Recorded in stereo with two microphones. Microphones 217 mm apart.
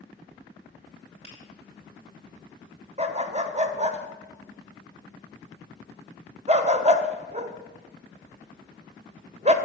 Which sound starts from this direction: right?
A dog barking, at 3.0 s.